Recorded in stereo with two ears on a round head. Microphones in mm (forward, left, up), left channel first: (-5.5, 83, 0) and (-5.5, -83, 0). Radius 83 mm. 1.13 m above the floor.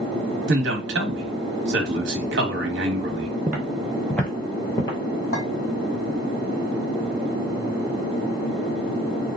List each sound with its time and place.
0.5 s a man speaking: 65° right (ahead or behind), 1.1 m
3.5 s footsteps: 10° right (ahead or behind), 1.3 m; by 5.0 s 25° left (ahead or behind), 1.2 m
5.3 s a clink: 55° left (ahead or behind), 1.8 m